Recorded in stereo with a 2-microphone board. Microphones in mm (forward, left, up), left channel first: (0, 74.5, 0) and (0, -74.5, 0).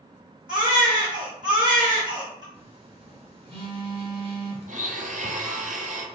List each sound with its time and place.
0.5 s a baby crying: 30° right (ahead or behind), 1.7 m
2.5 s a phone buzzing: 35° right (ahead or behind), 1.2 m
4.7 s a blender: 60° right (ahead or behind), 0.6 m